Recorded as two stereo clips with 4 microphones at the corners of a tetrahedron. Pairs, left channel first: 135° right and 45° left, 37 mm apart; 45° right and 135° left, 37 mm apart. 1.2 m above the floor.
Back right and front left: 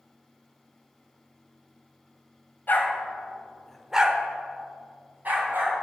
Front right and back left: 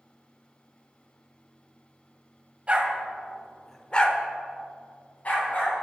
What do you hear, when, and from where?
2.7 s a dog barking: 170° right, 1.8 m; by 5.7 s 5° left, 3.5 m